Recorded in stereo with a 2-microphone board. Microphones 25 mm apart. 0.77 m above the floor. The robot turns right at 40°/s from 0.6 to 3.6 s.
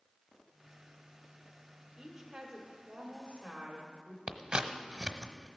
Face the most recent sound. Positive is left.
turn(degrees=-45)  # may be behind; listen again after turning